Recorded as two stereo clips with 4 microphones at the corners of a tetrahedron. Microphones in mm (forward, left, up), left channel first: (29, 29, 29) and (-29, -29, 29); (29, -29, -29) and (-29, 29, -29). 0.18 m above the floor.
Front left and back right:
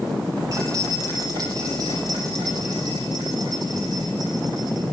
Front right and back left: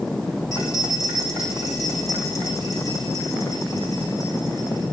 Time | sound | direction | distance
0.5 | keys jangling | 95° right | 5 m